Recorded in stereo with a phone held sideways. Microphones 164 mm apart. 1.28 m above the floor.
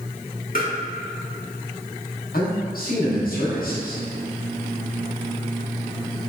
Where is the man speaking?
65° left (ahead or behind), 1.0 m.